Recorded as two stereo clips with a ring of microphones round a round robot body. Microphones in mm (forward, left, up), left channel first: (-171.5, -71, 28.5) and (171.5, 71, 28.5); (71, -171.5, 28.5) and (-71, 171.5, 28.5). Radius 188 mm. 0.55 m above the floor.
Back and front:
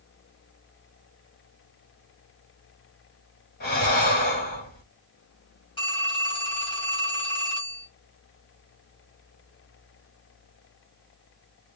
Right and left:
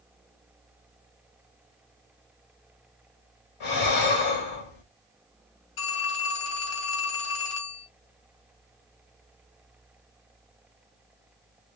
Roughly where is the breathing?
Right.